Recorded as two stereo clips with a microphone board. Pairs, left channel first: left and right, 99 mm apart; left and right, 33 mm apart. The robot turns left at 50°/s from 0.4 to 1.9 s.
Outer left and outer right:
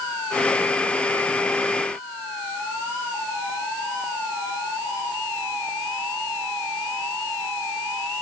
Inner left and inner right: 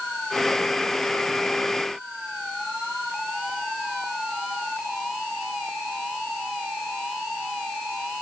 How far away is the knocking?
I don't hear knocking.